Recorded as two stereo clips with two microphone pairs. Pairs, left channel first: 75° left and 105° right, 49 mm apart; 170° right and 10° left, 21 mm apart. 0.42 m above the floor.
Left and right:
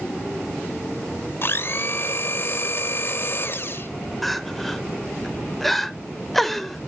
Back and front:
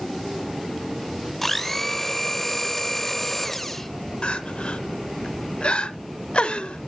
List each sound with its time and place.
1.4 s a blender: 105° left, 0.7 m
4.2 s crying: 160° left, 0.7 m